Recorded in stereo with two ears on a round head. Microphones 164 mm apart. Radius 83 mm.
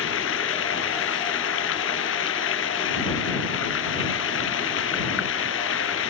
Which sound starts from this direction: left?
Running water, at 0.0 s.